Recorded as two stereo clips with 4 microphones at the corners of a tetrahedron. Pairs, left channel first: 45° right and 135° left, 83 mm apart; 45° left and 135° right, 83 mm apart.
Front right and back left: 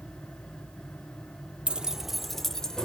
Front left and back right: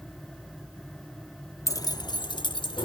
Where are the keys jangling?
65° left, 0.6 m; by 2.9 s 35° left, 1.3 m.